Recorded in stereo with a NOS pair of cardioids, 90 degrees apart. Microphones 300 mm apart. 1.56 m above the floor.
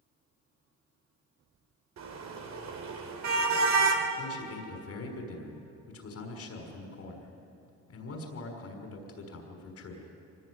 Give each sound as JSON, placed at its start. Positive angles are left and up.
{"t": 2.0, "sound": "a car horn", "azimuth_deg": -65, "distance_m": 3.5}
{"t": 4.2, "sound": "a man speaking", "azimuth_deg": 55, "distance_m": 6.0}